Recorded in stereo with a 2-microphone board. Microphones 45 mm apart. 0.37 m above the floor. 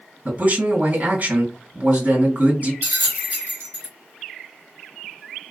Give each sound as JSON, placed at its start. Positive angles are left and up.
{"t": 0.2, "sound": "a man speaking", "side_deg": -35, "distance_m": 2.5}
{"t": 2.8, "sound": "a bell", "side_deg": -55, "distance_m": 1.6}